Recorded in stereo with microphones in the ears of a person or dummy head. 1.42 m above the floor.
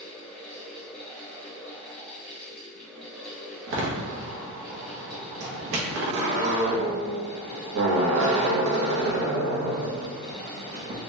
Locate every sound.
0.0 s a fan: 10° left (ahead or behind), 0.8 m
3.7 s a door slam: 60° right (ahead or behind), 1.0 m